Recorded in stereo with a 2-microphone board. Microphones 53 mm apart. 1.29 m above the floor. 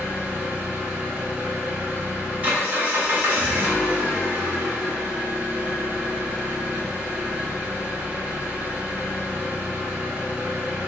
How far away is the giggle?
No giggle in this recording.